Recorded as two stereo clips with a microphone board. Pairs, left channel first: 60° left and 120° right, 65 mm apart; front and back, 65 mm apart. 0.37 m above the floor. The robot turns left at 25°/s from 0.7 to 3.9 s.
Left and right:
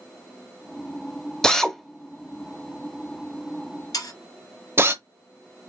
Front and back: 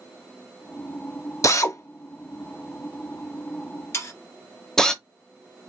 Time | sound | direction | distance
1.4 | a drill | 20° right | 0.7 m
3.9 | sawing | 45° left | 2.5 m